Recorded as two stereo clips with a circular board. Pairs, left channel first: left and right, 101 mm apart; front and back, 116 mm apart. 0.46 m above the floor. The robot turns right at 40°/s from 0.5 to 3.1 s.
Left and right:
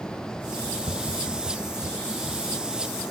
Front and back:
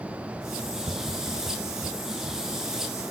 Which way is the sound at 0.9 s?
130° right.